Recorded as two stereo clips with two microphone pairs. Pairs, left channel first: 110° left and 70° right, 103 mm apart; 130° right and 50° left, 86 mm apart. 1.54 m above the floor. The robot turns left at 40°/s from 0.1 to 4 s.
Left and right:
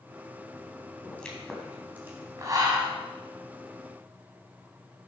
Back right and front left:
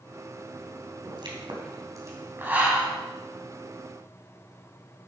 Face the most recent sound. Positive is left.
turn(degrees=-75)